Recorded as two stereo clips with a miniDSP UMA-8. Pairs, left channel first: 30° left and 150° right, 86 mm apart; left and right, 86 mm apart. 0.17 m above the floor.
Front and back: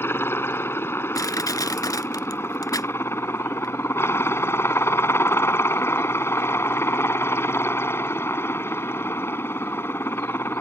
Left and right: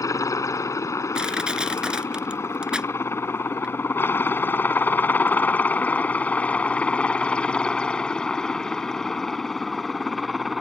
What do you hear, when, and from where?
0.0 s a helicopter: 75° left; by 10.6 s straight ahead
1.1 s crushing: 10° right